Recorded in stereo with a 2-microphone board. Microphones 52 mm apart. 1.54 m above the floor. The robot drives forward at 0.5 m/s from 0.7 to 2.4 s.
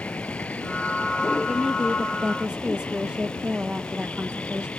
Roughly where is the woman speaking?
Centre.